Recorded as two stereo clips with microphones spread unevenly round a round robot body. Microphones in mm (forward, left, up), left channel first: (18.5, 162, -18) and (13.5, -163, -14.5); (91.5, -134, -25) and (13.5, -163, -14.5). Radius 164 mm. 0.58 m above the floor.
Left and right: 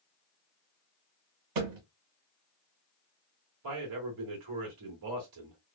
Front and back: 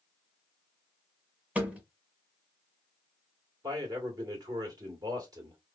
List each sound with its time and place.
1.6 s a thud: 85° right, 1.3 m
3.6 s a man speaking: 115° right, 1.9 m